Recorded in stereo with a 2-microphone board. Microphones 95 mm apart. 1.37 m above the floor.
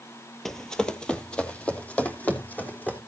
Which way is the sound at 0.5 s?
5° left (ahead or behind).